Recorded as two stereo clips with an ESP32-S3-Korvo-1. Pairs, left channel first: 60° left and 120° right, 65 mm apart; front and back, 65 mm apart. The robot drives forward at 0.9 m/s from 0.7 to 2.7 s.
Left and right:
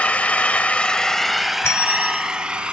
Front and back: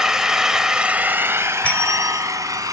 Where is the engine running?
110° left, 0.9 m; by 2.7 s 165° left, 2 m.